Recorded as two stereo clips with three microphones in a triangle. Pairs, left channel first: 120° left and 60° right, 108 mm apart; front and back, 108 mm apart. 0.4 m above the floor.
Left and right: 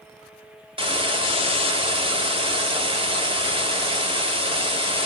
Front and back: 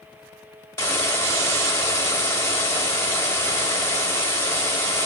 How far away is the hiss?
About 1.0 m.